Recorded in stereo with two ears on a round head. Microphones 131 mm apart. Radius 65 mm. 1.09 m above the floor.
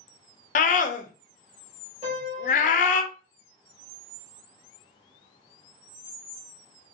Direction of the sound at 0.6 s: 55° left (ahead or behind).